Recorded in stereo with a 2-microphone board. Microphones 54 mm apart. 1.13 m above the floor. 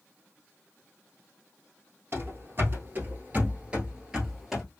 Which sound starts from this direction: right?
Running footsteps, at 2.1 s.